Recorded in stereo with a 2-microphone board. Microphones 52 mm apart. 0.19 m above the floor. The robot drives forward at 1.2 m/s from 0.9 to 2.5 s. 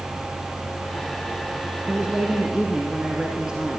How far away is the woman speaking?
About 1.4 m.